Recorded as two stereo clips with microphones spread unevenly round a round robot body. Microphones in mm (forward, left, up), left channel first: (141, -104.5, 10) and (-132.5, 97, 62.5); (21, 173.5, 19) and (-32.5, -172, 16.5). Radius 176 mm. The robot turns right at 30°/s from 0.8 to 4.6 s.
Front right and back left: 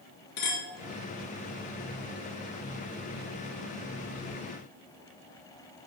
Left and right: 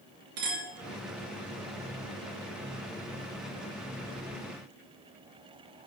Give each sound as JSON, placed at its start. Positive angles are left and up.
{"t": 0.4, "sound": "a clink", "azimuth_deg": -70, "distance_m": 4.0}